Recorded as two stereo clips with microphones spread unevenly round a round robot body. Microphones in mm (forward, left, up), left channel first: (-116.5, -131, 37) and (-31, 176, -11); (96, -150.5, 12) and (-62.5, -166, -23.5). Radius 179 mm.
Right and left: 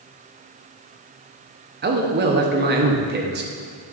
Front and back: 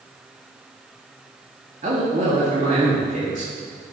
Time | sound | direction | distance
1.8 | a man speaking | 130° left | 1.3 m